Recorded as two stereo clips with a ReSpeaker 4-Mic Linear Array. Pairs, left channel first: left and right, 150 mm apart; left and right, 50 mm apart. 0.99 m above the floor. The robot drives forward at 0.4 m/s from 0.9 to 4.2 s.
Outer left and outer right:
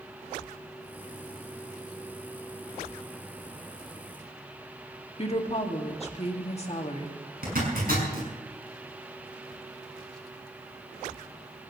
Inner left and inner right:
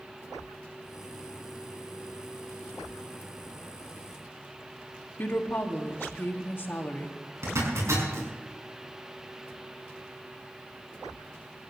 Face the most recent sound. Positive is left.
turn(degrees=-80)